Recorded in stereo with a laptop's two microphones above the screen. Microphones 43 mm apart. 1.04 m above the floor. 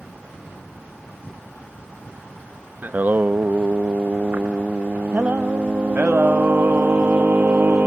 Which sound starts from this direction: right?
Singing, at 2.8 s.